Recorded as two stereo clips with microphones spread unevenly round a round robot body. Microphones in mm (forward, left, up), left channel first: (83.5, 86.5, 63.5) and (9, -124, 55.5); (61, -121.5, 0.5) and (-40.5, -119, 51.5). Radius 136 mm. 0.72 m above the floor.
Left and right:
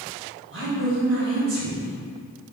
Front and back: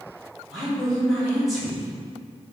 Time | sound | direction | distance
0.5 | a woman speaking | 85° right | 2 m